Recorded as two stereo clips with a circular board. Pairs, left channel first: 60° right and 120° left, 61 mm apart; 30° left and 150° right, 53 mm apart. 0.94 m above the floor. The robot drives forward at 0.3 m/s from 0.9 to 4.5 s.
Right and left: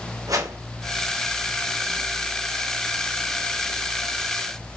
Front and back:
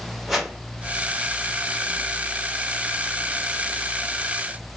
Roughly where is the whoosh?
Behind left.